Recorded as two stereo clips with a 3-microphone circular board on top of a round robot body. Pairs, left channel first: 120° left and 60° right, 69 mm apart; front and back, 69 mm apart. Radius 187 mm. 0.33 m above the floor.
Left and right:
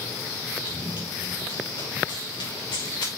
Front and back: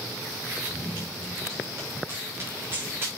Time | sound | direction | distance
0.7 | running footsteps | 120° left | 5 m